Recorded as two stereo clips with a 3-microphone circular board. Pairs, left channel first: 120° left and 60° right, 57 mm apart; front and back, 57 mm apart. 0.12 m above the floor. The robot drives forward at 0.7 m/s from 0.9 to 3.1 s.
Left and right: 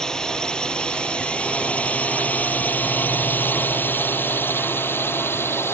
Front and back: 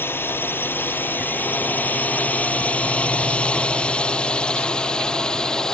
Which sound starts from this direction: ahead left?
A drone, at 0.0 s.